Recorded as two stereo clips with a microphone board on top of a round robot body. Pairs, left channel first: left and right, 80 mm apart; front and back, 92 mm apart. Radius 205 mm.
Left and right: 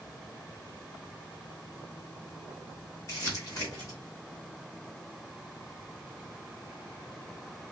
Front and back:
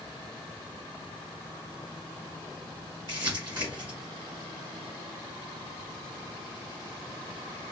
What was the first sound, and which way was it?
Crumpling, 140° left.